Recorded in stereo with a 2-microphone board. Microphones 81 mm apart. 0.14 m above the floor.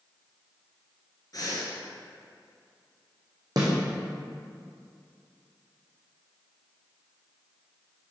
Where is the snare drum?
55° right (ahead or behind), 2 m.